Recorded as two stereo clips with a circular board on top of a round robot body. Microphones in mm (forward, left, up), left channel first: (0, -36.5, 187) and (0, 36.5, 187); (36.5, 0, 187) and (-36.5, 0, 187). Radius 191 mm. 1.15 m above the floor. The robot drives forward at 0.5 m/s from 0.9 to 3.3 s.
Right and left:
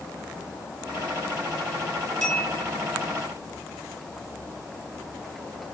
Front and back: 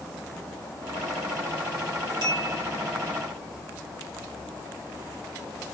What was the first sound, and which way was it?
A bell, 170° right.